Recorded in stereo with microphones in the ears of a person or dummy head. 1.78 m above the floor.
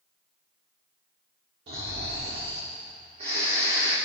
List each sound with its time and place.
1.7 s snoring: 30° right (ahead or behind), 1.5 m